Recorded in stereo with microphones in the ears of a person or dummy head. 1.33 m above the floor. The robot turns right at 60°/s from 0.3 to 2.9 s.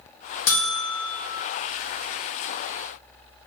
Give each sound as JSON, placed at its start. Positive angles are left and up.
{"t": 0.5, "sound": "a buzzer", "azimuth_deg": 95, "distance_m": 1.0}